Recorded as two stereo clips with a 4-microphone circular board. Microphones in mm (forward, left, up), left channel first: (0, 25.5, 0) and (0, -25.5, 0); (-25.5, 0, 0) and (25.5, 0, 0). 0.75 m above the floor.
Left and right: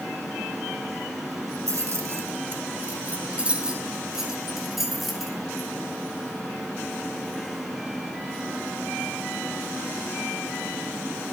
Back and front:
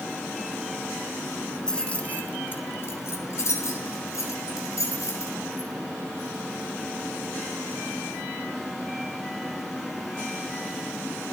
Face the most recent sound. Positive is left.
turn(degrees=180)